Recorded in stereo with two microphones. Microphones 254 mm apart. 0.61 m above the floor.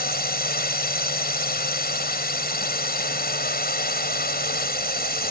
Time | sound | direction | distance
0.0 | a drone | 40° left (ahead or behind) | ?